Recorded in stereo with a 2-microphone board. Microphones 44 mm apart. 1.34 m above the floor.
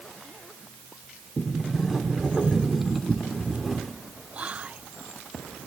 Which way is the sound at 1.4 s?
Centre (ahead or behind).